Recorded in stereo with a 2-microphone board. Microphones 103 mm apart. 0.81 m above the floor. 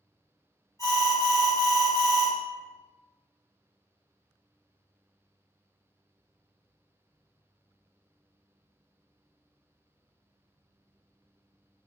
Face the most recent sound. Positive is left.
turn(degrees=25)  # may be behind; listen again after turning